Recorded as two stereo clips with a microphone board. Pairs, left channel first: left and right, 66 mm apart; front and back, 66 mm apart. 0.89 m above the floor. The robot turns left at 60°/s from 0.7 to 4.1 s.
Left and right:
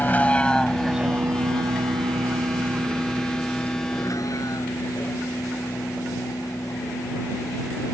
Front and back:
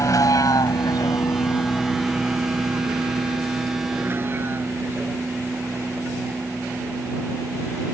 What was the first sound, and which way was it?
A vehicle, 30° left.